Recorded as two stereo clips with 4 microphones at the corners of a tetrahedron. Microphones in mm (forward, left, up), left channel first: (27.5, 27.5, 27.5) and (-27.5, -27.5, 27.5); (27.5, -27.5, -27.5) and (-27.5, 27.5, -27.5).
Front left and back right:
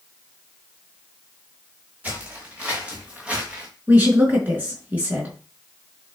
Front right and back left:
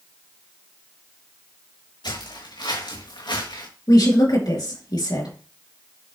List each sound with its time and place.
2.0 s footsteps: 65° right, 5 m; by 3.7 s 60° right, 4 m
3.9 s a woman speaking: 65° right, 4 m